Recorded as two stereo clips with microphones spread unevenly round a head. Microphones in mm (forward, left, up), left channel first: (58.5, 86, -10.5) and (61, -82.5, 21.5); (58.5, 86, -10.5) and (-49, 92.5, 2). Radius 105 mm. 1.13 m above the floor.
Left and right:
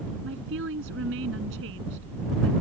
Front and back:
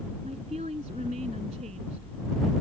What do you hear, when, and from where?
0.2 s a woman speaking: 125° right